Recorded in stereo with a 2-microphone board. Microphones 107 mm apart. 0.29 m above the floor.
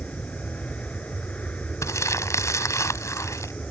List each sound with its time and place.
0.0 s an aircraft: 10° left (ahead or behind)
1.8 s crumpling: 30° left (ahead or behind)